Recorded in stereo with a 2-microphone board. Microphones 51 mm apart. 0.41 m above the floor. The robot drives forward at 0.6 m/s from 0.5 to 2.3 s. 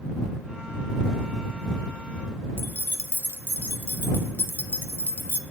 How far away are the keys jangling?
About 1.0 m.